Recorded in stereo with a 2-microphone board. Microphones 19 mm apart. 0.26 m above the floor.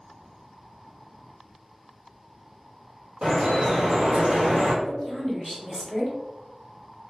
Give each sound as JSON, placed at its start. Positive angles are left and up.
{"t": 3.2, "sound": "dripping", "side_deg": -55, "distance_m": 1.7}
{"t": 4.8, "sound": "a woman speaking", "side_deg": -20, "distance_m": 1.1}